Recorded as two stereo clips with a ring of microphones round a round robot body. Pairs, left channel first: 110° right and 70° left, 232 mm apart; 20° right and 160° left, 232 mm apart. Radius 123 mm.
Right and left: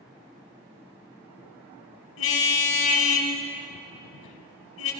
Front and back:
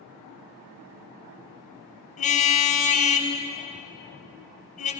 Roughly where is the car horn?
Right.